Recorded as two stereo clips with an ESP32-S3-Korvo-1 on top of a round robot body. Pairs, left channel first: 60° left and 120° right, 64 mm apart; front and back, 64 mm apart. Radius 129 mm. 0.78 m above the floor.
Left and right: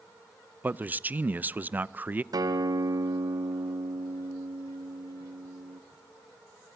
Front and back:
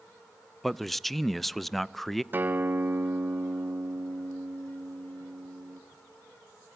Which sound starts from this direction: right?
A man speaking, at 0.6 s.